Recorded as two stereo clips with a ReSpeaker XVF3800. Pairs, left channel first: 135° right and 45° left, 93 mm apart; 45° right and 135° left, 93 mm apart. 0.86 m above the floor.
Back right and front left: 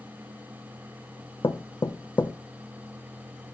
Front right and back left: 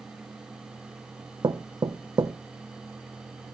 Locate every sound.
1.4 s knocking: straight behind, 0.5 m